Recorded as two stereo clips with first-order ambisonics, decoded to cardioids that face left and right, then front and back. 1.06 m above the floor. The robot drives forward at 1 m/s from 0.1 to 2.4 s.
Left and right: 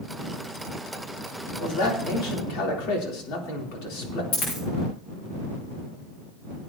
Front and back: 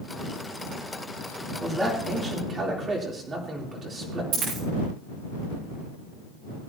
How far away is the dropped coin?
About 9 m.